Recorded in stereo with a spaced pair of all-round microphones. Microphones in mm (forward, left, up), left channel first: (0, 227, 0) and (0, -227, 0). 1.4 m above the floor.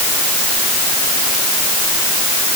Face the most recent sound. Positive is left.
No sound to turn to.